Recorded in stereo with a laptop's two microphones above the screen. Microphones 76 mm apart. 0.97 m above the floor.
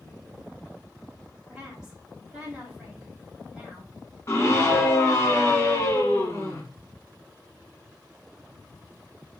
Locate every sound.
1.5 s a woman speaking: 10° right (ahead or behind), 2.5 m
4.3 s a scream: 35° left (ahead or behind), 1.1 m